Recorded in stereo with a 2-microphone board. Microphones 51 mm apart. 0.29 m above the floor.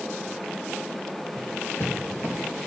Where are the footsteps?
65° left (ahead or behind), 3 m; by 2.4 s 50° left (ahead or behind), 3.5 m.